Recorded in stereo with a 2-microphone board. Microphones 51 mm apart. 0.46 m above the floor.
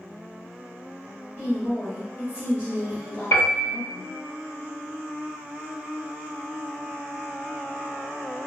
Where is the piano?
50° left (ahead or behind), 1.3 m.